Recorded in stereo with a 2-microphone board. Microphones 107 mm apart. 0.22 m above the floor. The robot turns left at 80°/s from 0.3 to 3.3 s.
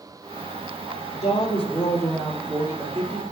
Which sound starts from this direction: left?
A woman speaking, at 1.1 s.